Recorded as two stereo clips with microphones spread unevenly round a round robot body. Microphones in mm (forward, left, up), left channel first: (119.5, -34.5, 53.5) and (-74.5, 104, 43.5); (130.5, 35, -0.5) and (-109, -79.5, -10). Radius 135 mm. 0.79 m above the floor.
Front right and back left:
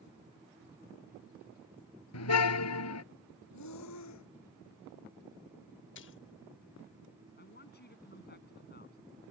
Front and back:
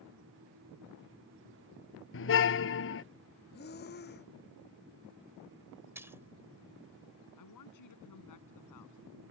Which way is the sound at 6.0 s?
75° right.